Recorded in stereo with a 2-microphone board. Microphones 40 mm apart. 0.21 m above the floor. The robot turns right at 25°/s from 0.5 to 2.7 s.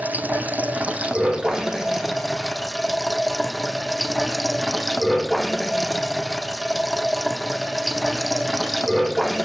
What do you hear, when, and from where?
0.0 s running water: 45° right, 1.8 m; by 9.4 s 10° left, 1.8 m